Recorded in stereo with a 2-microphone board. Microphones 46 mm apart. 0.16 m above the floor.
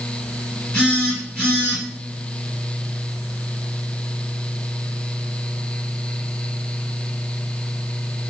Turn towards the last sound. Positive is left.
turn(degrees=15)  # may be behind; listen again after turning